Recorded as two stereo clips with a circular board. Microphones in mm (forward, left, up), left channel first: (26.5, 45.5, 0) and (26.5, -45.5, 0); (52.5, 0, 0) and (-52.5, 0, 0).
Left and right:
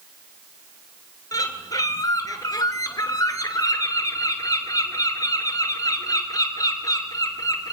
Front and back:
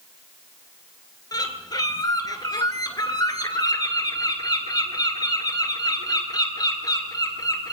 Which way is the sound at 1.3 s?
45° left.